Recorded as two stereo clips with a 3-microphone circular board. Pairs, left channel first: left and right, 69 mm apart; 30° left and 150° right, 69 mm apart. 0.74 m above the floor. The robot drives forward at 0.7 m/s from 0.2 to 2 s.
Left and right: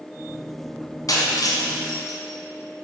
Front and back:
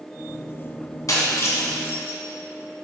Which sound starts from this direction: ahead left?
Breaking glass, at 1.1 s.